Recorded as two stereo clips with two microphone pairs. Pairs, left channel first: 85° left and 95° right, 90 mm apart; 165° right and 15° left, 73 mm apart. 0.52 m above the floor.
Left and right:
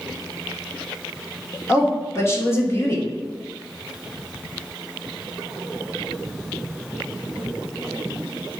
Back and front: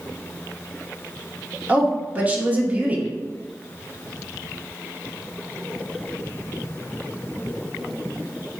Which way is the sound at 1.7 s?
60° left.